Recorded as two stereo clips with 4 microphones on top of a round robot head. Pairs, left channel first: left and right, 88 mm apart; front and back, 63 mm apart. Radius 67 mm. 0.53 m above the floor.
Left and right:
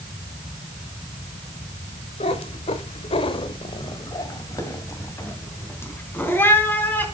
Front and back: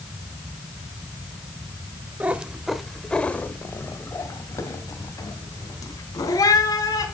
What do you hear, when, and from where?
2.2 s a cat meowing: 115° left, 1.0 m; by 7.0 s 20° left, 3 m